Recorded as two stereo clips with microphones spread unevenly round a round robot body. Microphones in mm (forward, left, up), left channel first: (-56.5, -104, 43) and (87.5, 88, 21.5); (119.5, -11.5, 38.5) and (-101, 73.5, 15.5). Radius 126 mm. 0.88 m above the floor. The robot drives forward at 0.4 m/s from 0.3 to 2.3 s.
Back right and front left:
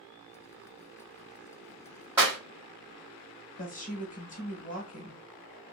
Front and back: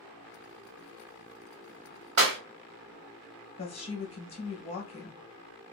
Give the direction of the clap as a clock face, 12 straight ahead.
8 o'clock.